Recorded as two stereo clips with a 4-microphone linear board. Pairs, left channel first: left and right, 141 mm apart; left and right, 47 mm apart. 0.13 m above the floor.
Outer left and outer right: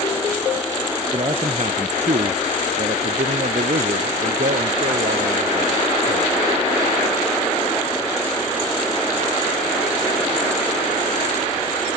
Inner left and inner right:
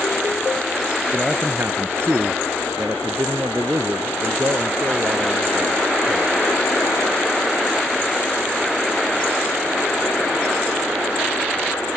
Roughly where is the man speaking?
Right.